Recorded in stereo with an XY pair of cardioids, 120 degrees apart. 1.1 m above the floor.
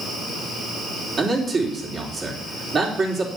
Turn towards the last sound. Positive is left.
turn(degrees=-40)